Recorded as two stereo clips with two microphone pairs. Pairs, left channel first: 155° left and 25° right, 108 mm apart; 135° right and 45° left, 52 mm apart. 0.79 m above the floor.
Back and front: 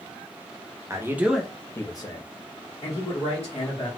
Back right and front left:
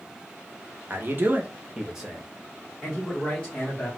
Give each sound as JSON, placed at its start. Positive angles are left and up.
{"t": 0.9, "sound": "a man speaking", "azimuth_deg": 20, "distance_m": 0.7}